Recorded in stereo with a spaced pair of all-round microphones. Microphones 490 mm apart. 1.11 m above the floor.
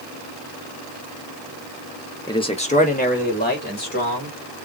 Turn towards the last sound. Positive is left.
turn(degrees=20)  # may be behind; listen again after turning